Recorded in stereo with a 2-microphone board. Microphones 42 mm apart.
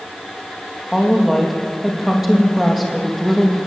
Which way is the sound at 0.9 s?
5° right (ahead or behind).